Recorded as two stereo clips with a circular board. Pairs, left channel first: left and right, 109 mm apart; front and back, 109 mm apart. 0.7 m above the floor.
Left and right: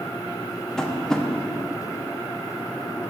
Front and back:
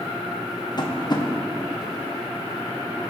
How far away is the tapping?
About 0.8 m.